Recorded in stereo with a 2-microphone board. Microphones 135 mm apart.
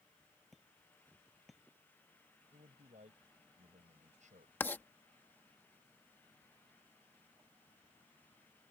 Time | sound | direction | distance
0.5 | hammering | centre (ahead or behind) | ?
2.5 | a man speaking | 65° right (ahead or behind) | ?
4.6 | writing | 15° left (ahead or behind) | ?